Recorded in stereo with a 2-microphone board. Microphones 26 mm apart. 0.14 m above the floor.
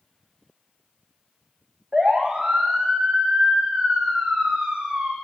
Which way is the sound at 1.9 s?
45° right (ahead or behind).